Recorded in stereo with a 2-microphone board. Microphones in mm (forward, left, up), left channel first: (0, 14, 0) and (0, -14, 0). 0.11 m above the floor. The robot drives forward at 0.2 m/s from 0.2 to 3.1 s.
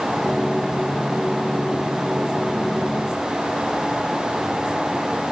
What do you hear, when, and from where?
Only background noise.